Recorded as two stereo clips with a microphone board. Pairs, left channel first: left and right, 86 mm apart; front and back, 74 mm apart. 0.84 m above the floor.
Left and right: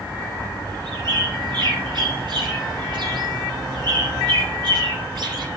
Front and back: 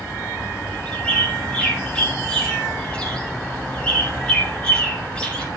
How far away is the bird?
About 5 m.